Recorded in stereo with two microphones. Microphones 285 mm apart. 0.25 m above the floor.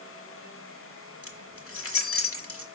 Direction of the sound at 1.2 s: 50° left (ahead or behind).